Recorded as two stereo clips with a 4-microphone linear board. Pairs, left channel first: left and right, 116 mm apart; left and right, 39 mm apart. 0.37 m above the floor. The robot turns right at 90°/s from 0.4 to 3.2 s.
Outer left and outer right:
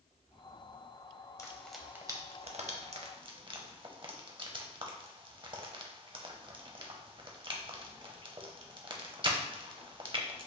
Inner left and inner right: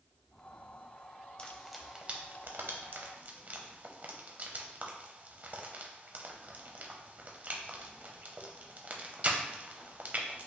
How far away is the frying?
About 0.6 m.